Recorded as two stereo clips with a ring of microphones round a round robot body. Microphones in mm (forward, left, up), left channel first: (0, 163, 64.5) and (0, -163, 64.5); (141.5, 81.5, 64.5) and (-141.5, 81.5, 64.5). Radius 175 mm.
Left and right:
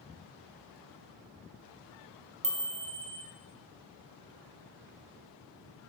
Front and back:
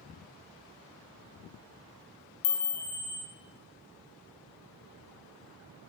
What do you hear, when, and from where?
2.4 s a chime: 40° right, 1.0 m